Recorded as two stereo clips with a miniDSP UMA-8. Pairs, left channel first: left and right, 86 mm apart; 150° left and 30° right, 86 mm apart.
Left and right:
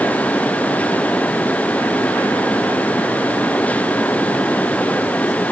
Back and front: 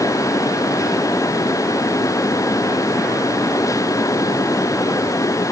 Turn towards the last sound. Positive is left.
No sound to turn to.